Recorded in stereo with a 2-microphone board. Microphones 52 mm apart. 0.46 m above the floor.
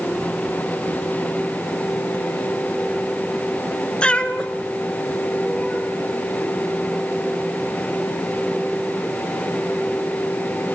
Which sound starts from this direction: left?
A cat meowing, at 4.0 s.